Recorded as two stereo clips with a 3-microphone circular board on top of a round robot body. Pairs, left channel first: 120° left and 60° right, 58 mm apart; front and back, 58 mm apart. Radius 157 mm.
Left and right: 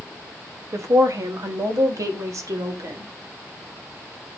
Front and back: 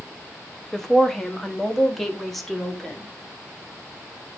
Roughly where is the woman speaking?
Right.